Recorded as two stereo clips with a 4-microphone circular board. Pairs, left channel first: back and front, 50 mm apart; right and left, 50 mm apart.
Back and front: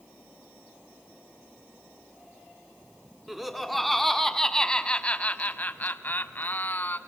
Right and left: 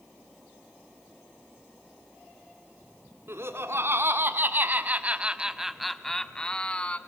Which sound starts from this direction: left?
Laughter, at 3.3 s.